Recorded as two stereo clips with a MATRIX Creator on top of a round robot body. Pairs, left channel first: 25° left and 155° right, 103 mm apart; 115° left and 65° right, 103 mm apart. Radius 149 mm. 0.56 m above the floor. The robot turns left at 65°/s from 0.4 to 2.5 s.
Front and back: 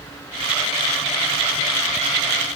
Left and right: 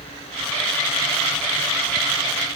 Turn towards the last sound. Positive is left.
No sound to turn to.